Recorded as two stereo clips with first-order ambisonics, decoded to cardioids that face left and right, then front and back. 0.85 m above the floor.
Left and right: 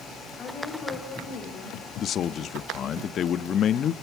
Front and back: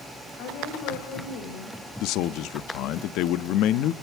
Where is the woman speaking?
25° left, 4.5 m; by 1.9 s 30° left, 3.5 m.